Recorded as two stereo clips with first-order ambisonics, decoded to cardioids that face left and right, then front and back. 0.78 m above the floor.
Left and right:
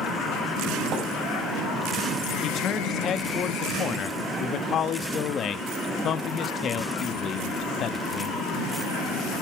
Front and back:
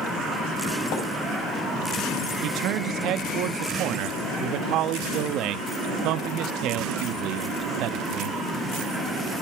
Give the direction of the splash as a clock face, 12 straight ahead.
1 o'clock.